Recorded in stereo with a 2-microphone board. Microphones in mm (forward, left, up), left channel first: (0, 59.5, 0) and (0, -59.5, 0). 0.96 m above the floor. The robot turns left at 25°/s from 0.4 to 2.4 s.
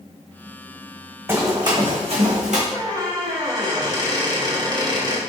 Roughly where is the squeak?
Right.